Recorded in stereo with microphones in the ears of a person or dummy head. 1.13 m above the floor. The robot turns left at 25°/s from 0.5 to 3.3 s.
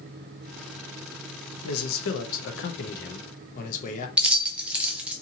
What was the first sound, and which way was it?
A man speaking, 90° left.